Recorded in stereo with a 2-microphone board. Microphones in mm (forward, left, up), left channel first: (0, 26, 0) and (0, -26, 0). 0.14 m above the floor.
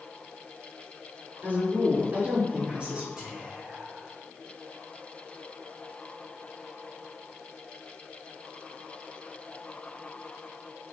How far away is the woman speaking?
About 2 m.